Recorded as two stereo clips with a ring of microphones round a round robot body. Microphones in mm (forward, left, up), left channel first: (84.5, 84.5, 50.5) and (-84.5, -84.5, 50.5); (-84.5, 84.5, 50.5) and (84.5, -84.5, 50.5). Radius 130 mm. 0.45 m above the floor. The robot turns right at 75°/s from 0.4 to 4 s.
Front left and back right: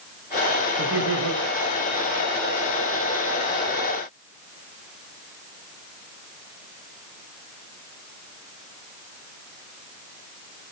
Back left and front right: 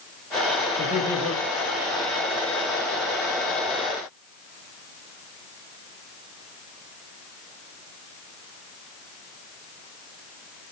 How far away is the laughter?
About 5.5 m.